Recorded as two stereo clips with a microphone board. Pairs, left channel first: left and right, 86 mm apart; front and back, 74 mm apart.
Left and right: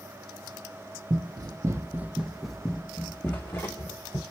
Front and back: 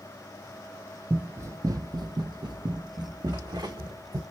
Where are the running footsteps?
115° right, 0.7 m; by 4.2 s 150° left, 1.4 m.